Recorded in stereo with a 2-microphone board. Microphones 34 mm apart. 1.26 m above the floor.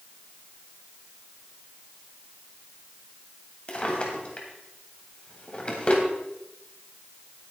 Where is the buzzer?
I don't hear a buzzer.